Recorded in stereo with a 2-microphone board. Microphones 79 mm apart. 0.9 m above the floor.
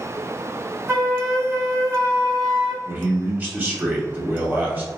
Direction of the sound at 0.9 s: 40° right (ahead or behind).